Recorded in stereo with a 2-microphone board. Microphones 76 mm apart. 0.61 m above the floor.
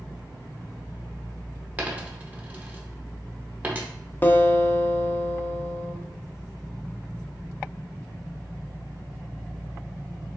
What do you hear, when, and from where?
1.8 s a dropped coin: 20° right (ahead or behind), 0.8 m
4.2 s a guitar: 30° left (ahead or behind), 0.5 m